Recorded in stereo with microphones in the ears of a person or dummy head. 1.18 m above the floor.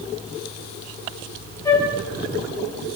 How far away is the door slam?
I don't hear a door slam.